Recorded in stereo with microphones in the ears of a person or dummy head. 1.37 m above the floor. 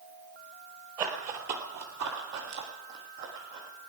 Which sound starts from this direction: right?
Running footsteps, at 1.0 s.